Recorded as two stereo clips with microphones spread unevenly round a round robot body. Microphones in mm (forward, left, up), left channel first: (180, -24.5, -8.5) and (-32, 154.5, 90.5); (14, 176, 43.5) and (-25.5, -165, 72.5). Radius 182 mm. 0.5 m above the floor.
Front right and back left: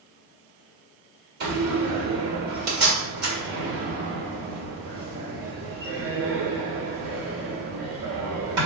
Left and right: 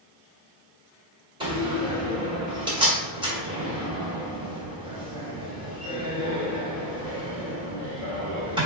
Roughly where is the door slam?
Behind.